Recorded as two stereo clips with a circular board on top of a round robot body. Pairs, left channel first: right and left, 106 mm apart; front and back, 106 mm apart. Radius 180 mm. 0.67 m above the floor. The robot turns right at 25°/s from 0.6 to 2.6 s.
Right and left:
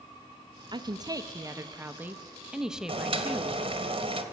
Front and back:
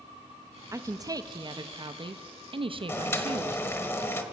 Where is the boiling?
65° left, 1.3 m.